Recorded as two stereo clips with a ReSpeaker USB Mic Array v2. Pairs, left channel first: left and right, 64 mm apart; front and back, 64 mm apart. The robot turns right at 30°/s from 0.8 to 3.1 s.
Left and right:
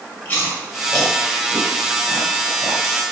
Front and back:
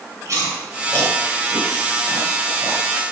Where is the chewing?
150° left, 2.5 m; by 2.8 s 150° right, 2.5 m.